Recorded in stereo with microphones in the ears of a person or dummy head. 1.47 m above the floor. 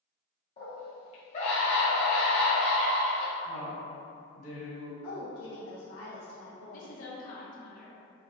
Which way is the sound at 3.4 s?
55° left (ahead or behind).